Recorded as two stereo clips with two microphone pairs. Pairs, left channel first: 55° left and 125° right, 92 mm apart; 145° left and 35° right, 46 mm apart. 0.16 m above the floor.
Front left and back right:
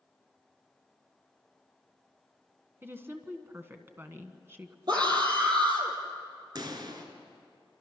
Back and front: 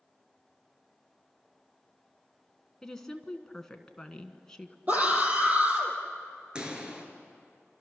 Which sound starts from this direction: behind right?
A woman speaking, at 2.8 s.